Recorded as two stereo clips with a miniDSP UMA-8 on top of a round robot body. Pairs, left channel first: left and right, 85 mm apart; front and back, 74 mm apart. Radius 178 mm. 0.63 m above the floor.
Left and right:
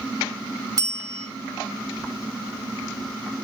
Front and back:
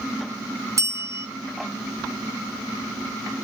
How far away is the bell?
About 3.5 m.